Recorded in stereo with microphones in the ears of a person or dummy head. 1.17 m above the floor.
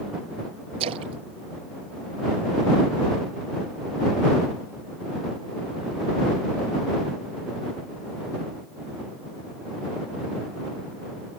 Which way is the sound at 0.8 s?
35° right (ahead or behind).